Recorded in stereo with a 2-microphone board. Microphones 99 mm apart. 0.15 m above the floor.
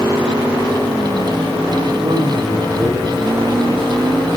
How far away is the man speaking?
About 6.5 m.